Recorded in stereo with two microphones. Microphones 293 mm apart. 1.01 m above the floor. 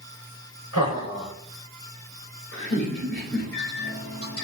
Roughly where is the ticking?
I don't hear ticking.